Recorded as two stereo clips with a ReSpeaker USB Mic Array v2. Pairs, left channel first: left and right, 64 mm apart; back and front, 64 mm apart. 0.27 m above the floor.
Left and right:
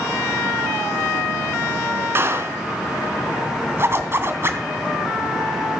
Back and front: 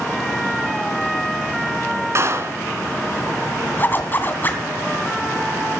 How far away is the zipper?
About 2.5 m.